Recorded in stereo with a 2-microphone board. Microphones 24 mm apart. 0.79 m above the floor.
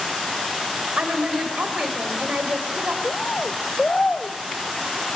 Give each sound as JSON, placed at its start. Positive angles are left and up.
{"t": 1.0, "sound": "a woman speaking", "side_deg": -70, "distance_m": 4.0}
{"t": 3.0, "sound": "a bird", "side_deg": 45, "distance_m": 1.3}